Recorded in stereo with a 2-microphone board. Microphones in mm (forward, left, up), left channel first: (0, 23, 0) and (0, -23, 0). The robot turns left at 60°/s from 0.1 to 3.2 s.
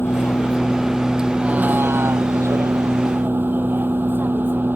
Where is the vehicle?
50° left; by 4.8 s 135° right.